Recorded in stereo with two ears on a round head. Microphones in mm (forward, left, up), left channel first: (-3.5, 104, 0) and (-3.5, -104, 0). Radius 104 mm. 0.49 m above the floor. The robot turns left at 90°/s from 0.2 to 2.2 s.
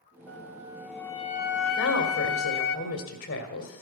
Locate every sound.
0.3 s a flute: 120° right, 0.8 m; by 2.8 s 65° left, 0.8 m
1.8 s a woman speaking: 110° left, 1.8 m; by 3.8 s 70° left, 1.8 m